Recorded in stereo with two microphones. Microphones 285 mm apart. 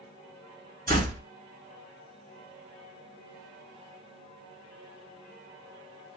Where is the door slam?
30° right (ahead or behind), 1.5 m.